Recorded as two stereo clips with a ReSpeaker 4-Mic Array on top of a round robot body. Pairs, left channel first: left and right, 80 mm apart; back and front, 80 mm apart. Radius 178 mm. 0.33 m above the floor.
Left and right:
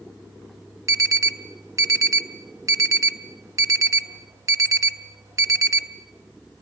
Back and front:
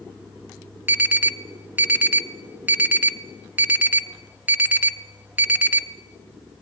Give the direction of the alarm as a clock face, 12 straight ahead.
2 o'clock.